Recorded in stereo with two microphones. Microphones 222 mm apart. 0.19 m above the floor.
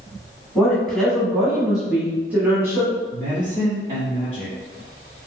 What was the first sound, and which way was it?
A woman speaking, 5° left (ahead or behind).